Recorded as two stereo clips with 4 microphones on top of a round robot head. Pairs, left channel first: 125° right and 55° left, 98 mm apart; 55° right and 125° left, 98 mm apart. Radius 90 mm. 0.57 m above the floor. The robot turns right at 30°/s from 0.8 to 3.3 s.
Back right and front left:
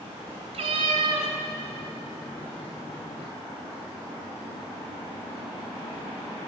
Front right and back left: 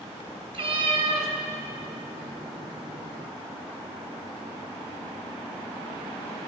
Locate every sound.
0.5 s a cat meowing: 80° left, 1.3 m; by 1.3 s 95° left, 1.3 m